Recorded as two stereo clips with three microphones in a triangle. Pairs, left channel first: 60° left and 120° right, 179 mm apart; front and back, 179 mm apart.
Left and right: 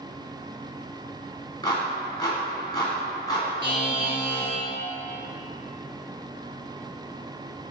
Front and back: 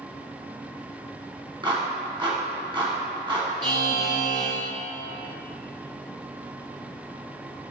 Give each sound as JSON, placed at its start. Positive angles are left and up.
{"t": 1.6, "sound": "a clap", "azimuth_deg": 120, "distance_m": 1.9}
{"t": 3.6, "sound": "a buzzer", "azimuth_deg": 115, "distance_m": 2.5}